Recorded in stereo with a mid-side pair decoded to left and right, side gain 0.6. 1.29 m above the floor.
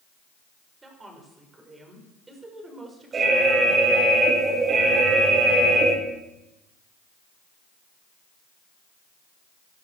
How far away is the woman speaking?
About 6 m.